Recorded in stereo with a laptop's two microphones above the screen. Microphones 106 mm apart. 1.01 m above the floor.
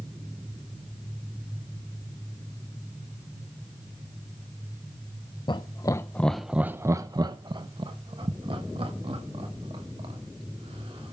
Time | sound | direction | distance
5.5 | laughter | 45° left (ahead or behind) | 0.6 m